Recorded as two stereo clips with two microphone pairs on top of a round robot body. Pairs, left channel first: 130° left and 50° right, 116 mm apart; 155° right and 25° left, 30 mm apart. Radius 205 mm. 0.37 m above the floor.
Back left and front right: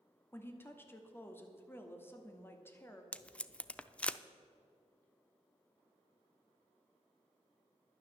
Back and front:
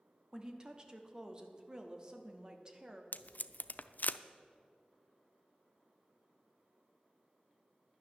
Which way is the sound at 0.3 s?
70° left.